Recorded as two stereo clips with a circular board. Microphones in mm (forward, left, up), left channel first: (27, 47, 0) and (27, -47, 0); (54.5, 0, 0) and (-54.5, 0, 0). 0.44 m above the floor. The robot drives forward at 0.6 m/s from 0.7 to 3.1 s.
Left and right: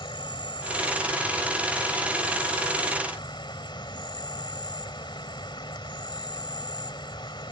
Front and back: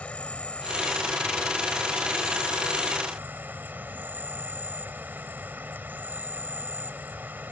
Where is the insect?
75° left; by 7.5 s 110° left.